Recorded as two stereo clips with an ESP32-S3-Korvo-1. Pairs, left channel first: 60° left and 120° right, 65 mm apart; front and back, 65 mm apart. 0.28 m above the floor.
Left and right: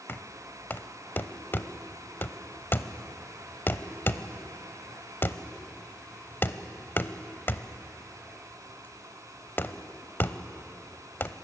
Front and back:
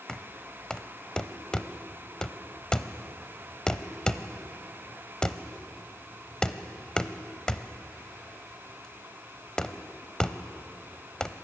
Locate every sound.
0.1 s knocking: 65° left, 0.8 m